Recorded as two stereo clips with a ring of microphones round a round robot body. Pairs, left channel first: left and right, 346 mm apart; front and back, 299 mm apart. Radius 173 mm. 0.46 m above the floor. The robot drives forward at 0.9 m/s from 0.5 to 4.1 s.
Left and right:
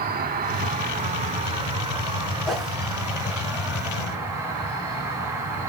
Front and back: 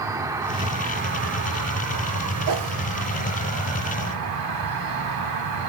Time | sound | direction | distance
0.0 | an insect | 115° right | 1.2 m
2.5 | a whoosh | straight behind | 3 m